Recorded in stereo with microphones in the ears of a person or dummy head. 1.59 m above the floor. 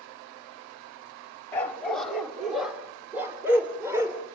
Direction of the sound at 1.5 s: 10° left (ahead or behind).